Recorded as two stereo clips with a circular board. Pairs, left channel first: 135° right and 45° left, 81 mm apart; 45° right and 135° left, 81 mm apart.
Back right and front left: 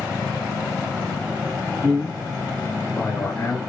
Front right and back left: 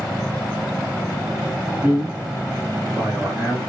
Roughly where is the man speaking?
Left.